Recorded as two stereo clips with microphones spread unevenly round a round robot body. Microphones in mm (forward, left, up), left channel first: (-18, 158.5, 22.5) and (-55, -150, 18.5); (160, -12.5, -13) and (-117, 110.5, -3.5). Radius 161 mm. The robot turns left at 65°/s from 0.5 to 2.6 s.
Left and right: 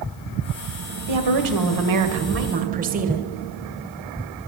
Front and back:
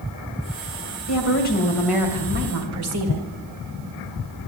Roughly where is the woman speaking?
Ahead right.